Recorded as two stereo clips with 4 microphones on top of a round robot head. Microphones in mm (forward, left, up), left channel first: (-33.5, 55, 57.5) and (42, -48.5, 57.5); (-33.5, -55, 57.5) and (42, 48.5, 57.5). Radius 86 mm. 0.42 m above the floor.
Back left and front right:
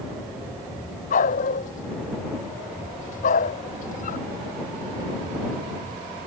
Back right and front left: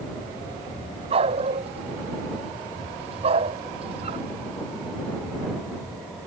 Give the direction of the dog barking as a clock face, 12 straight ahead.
9 o'clock.